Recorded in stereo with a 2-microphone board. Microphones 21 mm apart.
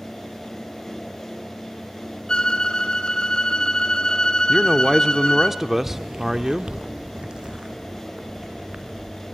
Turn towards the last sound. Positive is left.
turn(degrees=-45)  # may be behind; listen again after turning